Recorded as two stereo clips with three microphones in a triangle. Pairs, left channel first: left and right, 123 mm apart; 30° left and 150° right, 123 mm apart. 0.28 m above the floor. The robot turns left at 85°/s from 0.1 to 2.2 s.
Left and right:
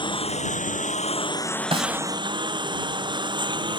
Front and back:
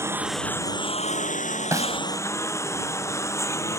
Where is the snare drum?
90° right; by 2.0 s 115° right.